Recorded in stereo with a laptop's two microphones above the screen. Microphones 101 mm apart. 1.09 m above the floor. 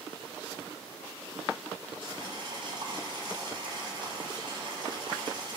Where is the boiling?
55° right (ahead or behind), 9.5 m.